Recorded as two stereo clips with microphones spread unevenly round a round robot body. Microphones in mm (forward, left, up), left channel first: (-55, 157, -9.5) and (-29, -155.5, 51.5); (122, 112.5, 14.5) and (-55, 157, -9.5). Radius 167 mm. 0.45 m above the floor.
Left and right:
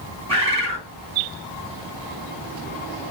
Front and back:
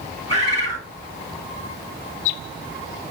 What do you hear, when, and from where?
0.3 s a bird: 160° right, 2.5 m